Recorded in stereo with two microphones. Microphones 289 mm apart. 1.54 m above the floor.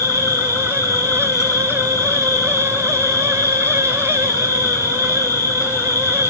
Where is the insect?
10° left (ahead or behind), 2 m.